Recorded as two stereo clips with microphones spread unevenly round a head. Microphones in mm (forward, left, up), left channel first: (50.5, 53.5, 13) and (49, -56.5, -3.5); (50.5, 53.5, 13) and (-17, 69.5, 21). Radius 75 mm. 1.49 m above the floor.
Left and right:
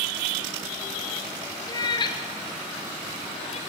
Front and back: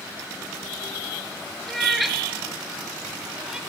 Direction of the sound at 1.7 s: 75° left.